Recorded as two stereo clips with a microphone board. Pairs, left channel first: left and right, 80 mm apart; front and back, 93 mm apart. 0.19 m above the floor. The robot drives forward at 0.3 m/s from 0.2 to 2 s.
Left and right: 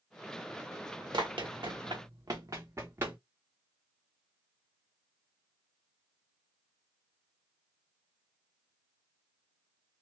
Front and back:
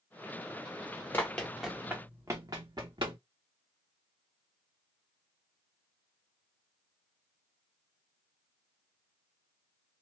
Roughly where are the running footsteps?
Ahead right.